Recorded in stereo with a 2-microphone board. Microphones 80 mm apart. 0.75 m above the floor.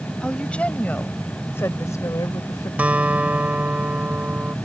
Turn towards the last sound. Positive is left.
turn(degrees=-20)  # may be behind; listen again after turning